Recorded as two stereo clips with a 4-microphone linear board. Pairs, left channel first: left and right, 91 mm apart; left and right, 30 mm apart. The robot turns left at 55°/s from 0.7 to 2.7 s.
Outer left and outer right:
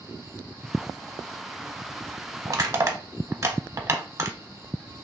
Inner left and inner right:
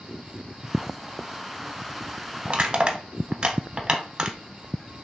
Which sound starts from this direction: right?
Crushing, at 2.5 s.